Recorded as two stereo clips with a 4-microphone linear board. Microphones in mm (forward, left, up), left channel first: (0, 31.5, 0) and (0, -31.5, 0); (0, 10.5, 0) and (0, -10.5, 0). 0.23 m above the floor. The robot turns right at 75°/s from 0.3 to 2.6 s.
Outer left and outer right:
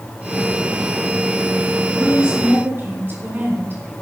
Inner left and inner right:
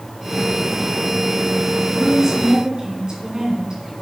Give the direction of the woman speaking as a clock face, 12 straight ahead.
6 o'clock.